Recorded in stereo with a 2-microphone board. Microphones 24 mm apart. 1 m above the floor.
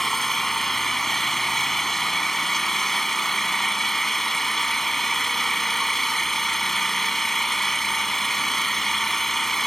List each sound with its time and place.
0.0 s an engine running: 15° left (ahead or behind)